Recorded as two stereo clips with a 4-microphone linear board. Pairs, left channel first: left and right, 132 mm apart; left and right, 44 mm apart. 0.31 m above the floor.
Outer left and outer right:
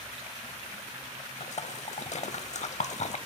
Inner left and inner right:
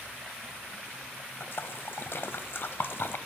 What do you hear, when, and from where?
1.4 s a splash: 60° left (ahead or behind), 0.6 m